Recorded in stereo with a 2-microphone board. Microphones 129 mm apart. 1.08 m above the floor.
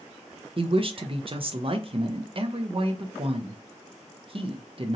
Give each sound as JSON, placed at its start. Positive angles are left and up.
{"t": 0.6, "sound": "a woman speaking", "side_deg": -45, "distance_m": 0.5}